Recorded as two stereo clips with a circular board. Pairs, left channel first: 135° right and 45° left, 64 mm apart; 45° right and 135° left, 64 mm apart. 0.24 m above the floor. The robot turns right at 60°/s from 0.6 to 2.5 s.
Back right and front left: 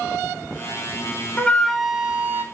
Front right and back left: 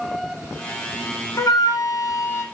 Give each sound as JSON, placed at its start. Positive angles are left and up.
{"t": 1.4, "sound": "a flute", "azimuth_deg": -70, "distance_m": 0.6}